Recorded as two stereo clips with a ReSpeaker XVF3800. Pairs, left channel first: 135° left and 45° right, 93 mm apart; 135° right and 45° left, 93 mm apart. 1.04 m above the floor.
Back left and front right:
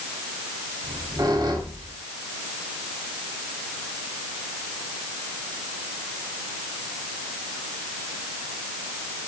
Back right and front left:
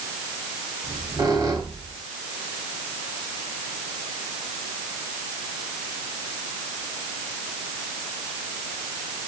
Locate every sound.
0.8 s a squeak: straight ahead, 3 m